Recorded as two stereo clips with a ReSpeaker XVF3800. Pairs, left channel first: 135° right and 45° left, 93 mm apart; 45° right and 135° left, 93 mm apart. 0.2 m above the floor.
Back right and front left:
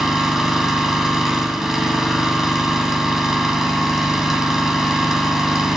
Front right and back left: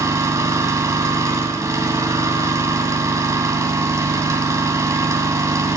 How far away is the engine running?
About 1.2 m.